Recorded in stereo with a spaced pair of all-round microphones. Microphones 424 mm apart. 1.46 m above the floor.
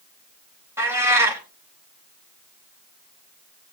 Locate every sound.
0.8 s a cat meowing: 5° right (ahead or behind), 3.5 m